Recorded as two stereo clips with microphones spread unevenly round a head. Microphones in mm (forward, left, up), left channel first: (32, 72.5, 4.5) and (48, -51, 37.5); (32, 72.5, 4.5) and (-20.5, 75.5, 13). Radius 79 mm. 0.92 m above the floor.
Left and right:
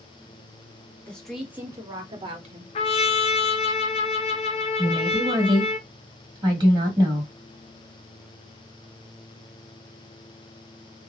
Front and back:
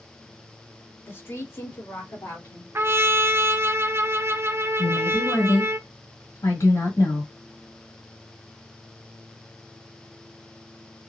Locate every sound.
1.1 s a woman speaking: 25° left, 1.4 m; by 2.6 s 45° right, 1.7 m
2.8 s a trumpet: 135° left, 0.5 m
4.8 s a woman speaking: 25° right, 1.7 m